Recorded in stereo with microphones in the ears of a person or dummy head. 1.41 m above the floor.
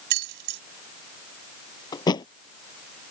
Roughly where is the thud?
Left.